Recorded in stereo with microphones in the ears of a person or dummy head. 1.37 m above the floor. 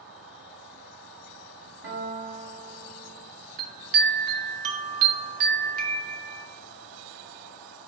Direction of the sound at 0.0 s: 65° right (ahead or behind).